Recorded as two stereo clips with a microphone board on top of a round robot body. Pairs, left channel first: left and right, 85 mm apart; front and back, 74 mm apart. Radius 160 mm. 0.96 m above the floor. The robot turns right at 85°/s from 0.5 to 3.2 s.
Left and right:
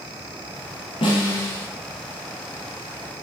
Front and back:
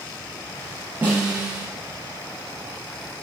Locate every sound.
1.0 s a snare drum: 110° left, 3.5 m; by 1.7 s 165° left, 3.5 m